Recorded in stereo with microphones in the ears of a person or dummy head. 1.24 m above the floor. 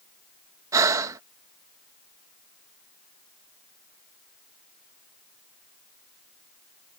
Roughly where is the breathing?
Right.